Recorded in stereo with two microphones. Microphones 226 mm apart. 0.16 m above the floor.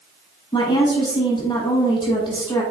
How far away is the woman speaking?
About 1.1 m.